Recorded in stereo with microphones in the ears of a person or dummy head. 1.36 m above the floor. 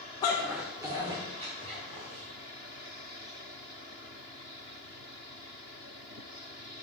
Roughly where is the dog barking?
Centre.